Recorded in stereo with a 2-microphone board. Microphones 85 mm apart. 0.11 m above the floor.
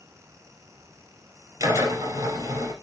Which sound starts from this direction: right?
A drill, at 1.6 s.